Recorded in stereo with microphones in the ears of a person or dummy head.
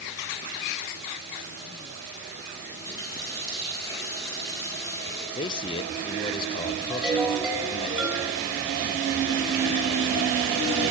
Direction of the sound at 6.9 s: Centre (ahead or behind).